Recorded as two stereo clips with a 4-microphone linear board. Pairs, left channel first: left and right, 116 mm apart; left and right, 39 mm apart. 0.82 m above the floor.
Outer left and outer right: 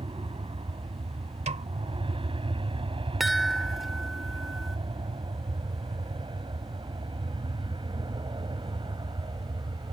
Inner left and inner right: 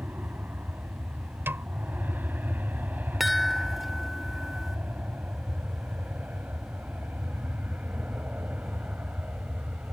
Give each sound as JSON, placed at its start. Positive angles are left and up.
{"t": 0.0, "sound": "an aircraft", "side_deg": -50}
{"t": 1.5, "sound": "a snare drum", "side_deg": -85}
{"t": 3.2, "sound": "a chime", "side_deg": 0}